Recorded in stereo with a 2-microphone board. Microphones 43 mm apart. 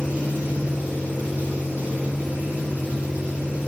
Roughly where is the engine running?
Right.